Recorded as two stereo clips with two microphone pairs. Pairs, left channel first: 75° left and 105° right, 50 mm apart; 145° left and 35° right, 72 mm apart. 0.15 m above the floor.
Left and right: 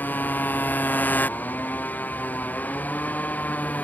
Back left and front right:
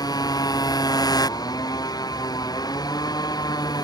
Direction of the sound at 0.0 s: 125° left.